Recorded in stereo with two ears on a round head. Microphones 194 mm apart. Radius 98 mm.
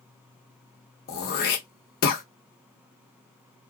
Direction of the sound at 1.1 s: 50° left (ahead or behind).